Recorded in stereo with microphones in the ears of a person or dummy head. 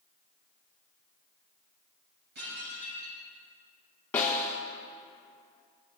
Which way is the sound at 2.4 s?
60° right (ahead or behind).